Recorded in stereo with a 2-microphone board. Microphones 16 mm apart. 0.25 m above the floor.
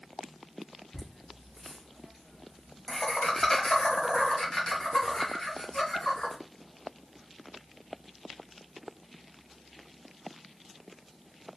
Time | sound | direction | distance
0.9 | laughter | centre (ahead or behind) | 1.6 m